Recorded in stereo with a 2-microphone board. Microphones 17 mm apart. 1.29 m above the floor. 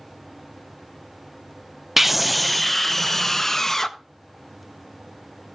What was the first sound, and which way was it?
A scream, 20° right (ahead or behind).